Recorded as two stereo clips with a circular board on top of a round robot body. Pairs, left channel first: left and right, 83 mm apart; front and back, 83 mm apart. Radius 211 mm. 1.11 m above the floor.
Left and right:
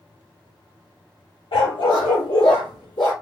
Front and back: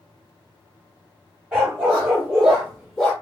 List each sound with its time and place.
1.5 s a dog barking: 100° left, 1.2 m; by 3.1 s 70° left, 0.8 m